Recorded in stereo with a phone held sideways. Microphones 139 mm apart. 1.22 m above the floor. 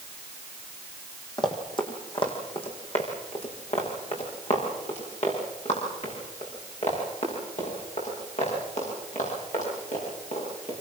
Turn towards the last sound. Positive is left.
turn(degrees=60)  # may be behind; listen again after turning